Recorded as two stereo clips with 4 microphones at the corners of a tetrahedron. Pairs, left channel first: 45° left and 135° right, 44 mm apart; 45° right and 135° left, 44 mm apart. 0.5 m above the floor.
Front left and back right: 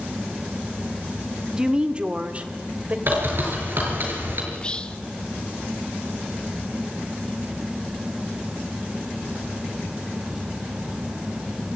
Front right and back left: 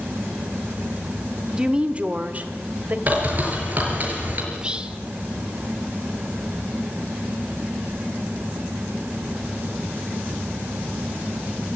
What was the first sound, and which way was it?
A woman speaking, 175° left.